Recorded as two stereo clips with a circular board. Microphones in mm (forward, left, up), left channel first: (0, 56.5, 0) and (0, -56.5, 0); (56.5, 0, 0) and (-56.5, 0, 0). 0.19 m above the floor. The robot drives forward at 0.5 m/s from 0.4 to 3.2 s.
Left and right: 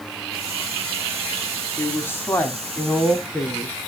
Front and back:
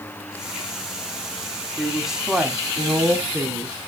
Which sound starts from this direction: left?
A woman speaking, at 1.8 s.